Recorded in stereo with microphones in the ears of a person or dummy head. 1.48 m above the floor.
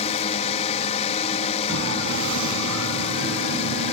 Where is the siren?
70° right (ahead or behind); by 3.9 s 75° right (ahead or behind).